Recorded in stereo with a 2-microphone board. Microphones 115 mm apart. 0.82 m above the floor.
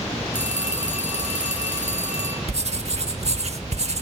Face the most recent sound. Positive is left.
turn(degrees=-60)  # may be behind; listen again after turning